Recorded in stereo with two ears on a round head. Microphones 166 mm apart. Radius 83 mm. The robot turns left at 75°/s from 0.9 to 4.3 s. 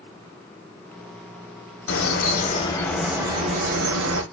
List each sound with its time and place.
1.9 s a bird: 85° left, 1.1 m; by 4.2 s 90° right, 1.1 m